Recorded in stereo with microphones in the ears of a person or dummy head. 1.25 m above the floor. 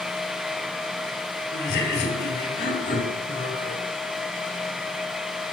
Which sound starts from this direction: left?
Laughter, at 1.5 s.